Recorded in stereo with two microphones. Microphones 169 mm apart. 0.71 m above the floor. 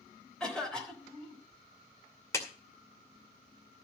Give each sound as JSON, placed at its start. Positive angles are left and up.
{"t": 0.4, "sound": "a cough", "side_deg": 5, "distance_m": 3.5}
{"t": 2.3, "sound": "a clap", "side_deg": 15, "distance_m": 2.5}